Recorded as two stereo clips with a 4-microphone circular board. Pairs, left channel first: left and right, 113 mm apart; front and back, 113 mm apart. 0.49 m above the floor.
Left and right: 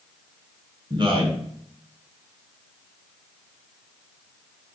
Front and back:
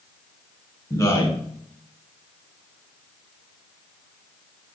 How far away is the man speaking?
About 3 m.